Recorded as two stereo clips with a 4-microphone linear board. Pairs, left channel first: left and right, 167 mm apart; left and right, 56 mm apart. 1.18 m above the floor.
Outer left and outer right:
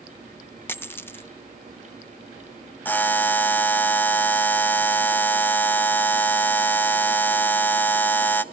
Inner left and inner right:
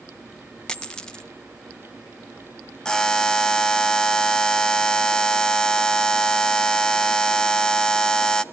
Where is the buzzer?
10° left (ahead or behind), 0.5 m.